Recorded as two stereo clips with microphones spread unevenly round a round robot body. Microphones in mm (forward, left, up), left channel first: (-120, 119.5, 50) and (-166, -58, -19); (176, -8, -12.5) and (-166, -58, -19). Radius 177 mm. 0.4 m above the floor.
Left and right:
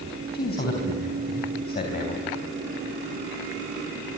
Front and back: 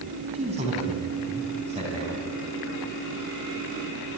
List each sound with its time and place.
0.3 s a man speaking: 115° left, 3.5 m